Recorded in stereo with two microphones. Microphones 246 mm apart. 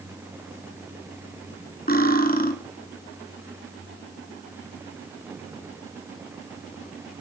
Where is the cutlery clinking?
35° left (ahead or behind), 2.5 m.